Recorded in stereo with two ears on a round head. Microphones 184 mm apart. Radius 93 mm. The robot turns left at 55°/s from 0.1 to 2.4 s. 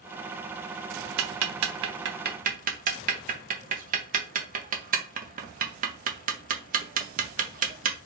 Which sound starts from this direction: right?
Ticking, at 1.2 s.